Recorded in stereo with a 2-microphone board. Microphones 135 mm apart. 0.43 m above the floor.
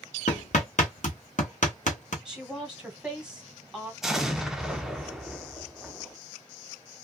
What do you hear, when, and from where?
0.3 s hammering: 65° left (ahead or behind), 1.1 m
2.2 s a woman speaking: 5° right (ahead or behind), 1.3 m
4.0 s an explosion: 5° right (ahead or behind), 0.6 m